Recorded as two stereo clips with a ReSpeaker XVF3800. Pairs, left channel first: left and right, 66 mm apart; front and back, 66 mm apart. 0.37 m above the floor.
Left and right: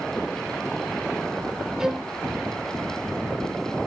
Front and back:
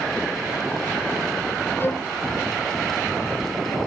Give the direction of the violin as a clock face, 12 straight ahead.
12 o'clock.